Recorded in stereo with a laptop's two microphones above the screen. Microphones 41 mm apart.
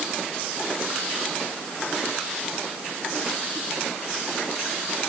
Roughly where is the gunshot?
No gunshot in this recording.